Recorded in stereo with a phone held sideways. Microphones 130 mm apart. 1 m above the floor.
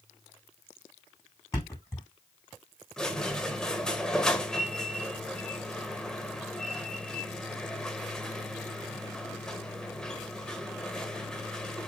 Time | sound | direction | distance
1.5 | a thud | 25° left (ahead or behind) | 4 m
3.0 | a squeak | 5° left (ahead or behind) | 1.1 m